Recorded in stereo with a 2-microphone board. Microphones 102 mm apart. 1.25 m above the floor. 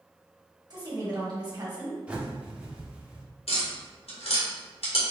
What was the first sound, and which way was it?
A woman speaking, 40° right (ahead or behind).